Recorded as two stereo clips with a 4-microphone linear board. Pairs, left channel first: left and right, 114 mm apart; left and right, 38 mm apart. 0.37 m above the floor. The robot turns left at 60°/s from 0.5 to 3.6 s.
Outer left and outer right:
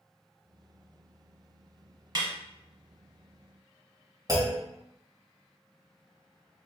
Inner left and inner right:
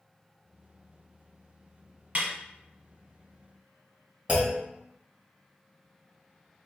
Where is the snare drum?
40° right (ahead or behind), 1.0 m; by 2.3 s 50° right (ahead or behind), 1.0 m.